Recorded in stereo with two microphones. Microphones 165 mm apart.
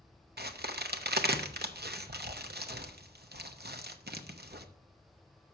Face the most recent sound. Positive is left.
turn(degrees=-80)